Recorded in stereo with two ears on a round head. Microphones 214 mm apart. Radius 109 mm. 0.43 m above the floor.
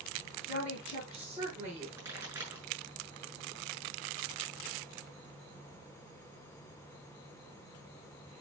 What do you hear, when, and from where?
0.5 s a woman speaking: 5° right (ahead or behind), 5.5 m; by 1.9 s 10° right (ahead or behind), 4.5 m
2.0 s a pop: 10° right (ahead or behind), 6.5 m